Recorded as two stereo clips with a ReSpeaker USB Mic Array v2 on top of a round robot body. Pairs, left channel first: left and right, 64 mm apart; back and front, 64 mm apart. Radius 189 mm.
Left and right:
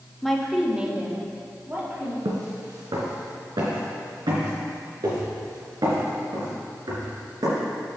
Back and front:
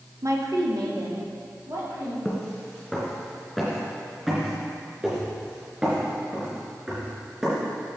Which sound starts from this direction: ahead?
A woman speaking, at 0.2 s.